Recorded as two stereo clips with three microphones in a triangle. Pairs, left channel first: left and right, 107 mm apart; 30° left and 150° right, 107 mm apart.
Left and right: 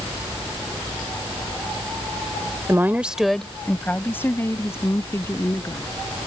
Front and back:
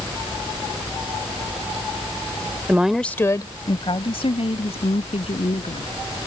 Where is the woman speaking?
105° right; by 5.9 s 30° left.